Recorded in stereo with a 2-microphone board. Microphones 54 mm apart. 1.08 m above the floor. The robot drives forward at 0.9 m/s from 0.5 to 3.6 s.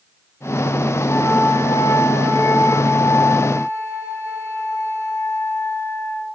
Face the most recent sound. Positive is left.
turn(degrees=80)